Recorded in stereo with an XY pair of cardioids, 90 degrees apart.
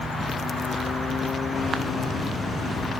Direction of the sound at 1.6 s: 60° left.